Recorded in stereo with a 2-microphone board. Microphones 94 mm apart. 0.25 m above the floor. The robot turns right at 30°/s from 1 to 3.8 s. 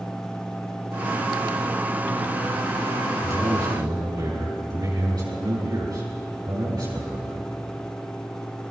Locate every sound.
3.2 s a man speaking: 25° right (ahead or behind), 4 m; by 7.5 s 45° right (ahead or behind), 4 m